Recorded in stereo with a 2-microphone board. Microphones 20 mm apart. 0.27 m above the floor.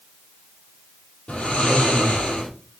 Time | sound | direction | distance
1.3 | snoring | 80° left | 4 m